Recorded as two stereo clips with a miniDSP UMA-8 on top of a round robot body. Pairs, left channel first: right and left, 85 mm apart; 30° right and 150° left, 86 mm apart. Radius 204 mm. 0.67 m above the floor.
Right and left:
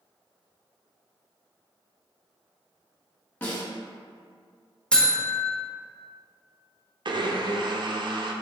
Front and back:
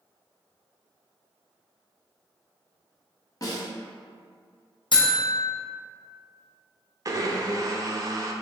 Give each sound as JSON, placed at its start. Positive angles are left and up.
{"t": 3.4, "sound": "a snare drum", "azimuth_deg": -30, "distance_m": 1.3}
{"t": 4.9, "sound": "a buzzer", "azimuth_deg": -10, "distance_m": 1.0}
{"t": 7.0, "sound": "a blender", "azimuth_deg": 105, "distance_m": 0.6}